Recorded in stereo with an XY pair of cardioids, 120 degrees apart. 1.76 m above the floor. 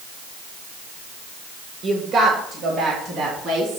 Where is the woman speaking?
60° right, 2 m; by 3.8 s 55° right, 3.5 m.